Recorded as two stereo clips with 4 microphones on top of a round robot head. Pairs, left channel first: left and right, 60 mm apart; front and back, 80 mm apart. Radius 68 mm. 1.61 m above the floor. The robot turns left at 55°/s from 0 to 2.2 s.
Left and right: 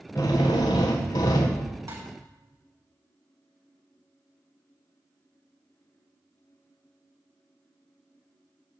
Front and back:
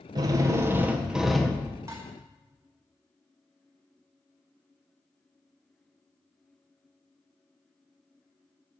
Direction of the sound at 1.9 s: 125° right.